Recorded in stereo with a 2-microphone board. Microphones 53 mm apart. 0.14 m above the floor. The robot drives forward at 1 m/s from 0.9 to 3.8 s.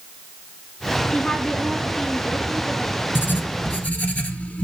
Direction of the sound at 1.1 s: 15° left (ahead or behind).